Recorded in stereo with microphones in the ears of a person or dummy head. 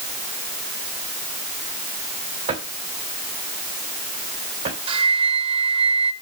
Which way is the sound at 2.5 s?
35° right (ahead or behind).